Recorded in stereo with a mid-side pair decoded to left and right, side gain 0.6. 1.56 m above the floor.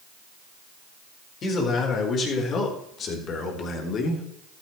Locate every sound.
1.4 s a man speaking: 45° left, 4.5 m; by 4.2 s 50° left, 3 m